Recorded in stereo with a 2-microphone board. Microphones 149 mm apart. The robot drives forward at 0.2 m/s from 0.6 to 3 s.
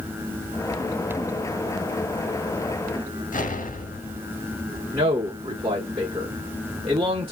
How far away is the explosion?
About 0.8 m.